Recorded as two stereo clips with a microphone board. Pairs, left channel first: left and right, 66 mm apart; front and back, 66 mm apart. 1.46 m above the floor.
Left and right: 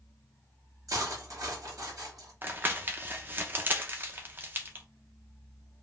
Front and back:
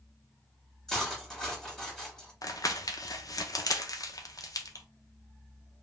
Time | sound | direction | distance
0.9 | cutlery clinking | 85° right | 1.4 m
2.4 | crumpling | 30° right | 0.6 m